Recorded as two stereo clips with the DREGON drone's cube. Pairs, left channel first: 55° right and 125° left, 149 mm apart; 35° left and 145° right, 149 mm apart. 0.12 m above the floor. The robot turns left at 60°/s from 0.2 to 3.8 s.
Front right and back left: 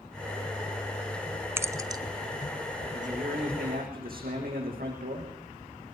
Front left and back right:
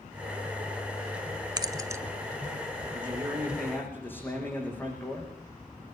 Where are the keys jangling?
175° right, 1.0 m; by 2.0 s 155° left, 1.0 m.